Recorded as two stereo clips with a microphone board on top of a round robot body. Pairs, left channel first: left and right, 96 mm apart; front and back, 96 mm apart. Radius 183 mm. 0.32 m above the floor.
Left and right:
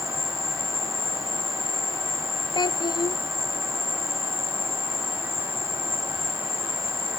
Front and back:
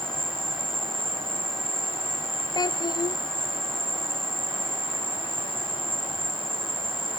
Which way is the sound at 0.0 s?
150° left.